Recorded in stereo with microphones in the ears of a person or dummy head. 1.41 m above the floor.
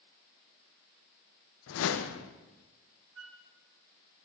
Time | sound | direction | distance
1.7 | a whoosh | 75° left (ahead or behind) | 1.0 m
3.1 | a flute | 80° right | 1.3 m